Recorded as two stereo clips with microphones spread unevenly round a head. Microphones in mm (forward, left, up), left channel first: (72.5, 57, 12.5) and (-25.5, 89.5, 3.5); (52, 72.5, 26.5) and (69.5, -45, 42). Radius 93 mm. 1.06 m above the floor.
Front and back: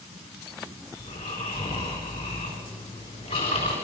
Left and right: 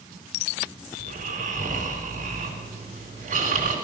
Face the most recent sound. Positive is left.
turn(degrees=-80)